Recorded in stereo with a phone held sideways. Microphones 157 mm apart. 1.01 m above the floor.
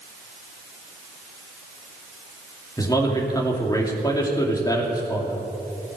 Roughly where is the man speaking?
Left.